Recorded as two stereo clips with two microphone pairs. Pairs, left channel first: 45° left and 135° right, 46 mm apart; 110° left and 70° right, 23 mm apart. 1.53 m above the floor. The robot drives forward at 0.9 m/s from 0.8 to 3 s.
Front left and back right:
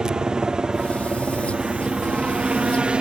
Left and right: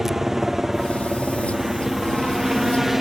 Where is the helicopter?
115° right; by 3.0 s 135° right.